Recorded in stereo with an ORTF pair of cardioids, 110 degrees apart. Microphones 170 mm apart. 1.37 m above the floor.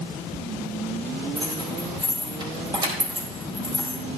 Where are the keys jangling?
25° right, 4 m.